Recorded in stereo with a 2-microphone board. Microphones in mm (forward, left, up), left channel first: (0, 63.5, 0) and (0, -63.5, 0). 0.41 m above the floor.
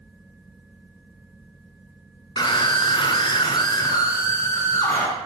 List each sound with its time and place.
2.4 s a scream: 35° left (ahead or behind), 1.2 m; by 5.1 s 20° left (ahead or behind), 1.8 m